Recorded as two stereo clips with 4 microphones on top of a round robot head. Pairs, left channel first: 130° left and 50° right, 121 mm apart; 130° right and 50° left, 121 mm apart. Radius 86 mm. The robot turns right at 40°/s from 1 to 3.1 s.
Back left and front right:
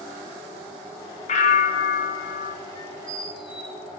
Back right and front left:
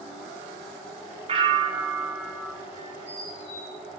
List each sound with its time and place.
1.3 s a bell: 95° left, 1.0 m; by 2.5 s 150° left, 1.0 m
2.8 s a squeak: 170° left, 2.5 m; by 3.8 s 175° right, 2.5 m